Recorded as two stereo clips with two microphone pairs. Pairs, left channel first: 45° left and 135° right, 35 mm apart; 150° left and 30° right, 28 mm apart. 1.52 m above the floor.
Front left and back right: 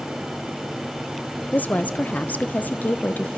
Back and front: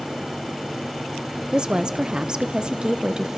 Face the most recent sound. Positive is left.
turn(degrees=20)